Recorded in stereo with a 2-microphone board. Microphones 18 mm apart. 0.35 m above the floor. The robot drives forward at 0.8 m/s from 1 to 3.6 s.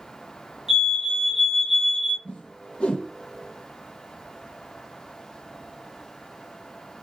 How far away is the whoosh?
About 1.6 m.